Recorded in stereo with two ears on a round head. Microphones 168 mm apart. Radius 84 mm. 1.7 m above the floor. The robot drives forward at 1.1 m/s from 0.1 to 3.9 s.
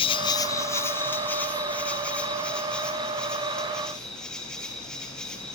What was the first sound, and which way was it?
An insect, 30° left (ahead or behind).